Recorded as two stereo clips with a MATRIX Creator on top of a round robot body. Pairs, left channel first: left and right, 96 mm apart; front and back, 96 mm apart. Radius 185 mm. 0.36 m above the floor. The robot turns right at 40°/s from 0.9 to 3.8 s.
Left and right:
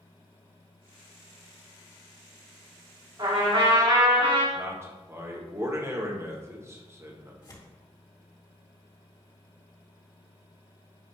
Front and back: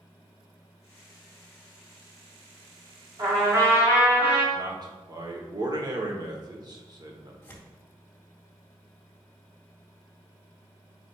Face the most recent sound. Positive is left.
turn(degrees=65)